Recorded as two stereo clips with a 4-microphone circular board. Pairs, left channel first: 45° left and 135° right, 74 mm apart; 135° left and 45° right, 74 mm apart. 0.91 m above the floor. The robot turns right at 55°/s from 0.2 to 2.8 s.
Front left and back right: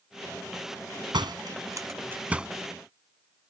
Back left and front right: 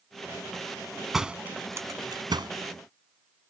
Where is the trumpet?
No trumpet in this recording.